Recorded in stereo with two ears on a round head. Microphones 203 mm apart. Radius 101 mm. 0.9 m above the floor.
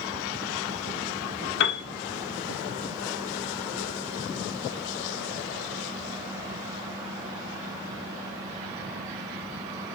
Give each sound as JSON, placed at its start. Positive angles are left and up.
{"t": 1.6, "sound": "a piano", "side_deg": 55, "distance_m": 2.0}